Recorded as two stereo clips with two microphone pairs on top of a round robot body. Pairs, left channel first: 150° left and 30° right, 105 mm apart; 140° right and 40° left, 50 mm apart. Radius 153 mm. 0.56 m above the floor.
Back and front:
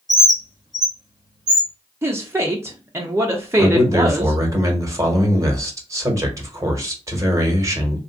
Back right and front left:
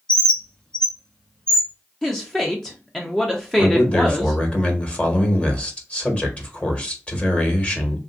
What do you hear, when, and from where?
0.1 s a bird: 65° right, 1.8 m
2.0 s a woman speaking: 55° right, 0.8 m
3.6 s a man speaking: 75° right, 1.4 m